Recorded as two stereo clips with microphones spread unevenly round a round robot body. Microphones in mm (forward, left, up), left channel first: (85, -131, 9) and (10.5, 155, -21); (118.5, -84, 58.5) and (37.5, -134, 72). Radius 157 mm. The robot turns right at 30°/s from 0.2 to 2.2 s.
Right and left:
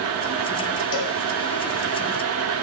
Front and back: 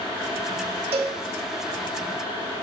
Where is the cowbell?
130° right, 1.4 m; by 1.2 s 120° right, 1.4 m.